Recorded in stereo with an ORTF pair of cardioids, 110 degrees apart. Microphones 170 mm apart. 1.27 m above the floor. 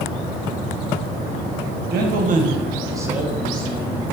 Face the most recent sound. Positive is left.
turn(degrees=15)